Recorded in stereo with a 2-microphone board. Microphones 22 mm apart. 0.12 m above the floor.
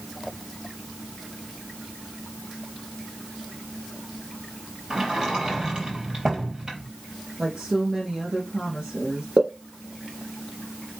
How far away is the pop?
About 4 m.